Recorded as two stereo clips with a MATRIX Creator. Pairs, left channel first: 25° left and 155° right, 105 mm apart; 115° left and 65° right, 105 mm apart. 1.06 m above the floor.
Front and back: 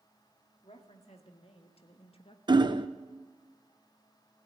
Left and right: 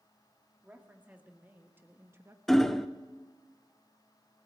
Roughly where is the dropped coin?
No dropped coin in this recording.